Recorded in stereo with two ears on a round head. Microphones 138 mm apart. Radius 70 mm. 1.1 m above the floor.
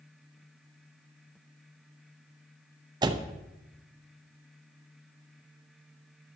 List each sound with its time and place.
3.0 s a door slam: 30° right (ahead or behind), 0.6 m